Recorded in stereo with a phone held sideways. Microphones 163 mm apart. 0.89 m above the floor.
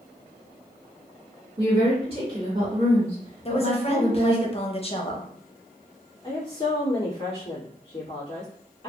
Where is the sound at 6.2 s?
35° left (ahead or behind), 1.6 m.